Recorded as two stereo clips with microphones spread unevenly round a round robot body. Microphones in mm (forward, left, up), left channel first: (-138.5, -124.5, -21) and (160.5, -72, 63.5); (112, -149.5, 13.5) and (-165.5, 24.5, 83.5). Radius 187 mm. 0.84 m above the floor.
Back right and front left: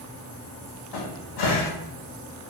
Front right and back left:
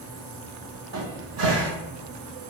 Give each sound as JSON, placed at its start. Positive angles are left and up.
{"t": 0.9, "sound": "a cupboard door", "azimuth_deg": -170, "distance_m": 0.9}